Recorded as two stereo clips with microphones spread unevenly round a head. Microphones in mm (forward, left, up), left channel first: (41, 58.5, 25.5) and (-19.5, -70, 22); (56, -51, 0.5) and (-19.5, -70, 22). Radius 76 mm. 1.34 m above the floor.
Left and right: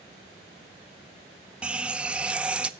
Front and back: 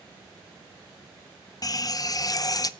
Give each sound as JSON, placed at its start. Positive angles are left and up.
{"t": 1.6, "sound": "a running tap", "azimuth_deg": -35, "distance_m": 0.6}